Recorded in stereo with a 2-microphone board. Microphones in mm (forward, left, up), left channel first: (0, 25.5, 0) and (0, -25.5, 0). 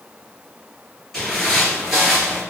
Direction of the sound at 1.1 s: 5° left (ahead or behind).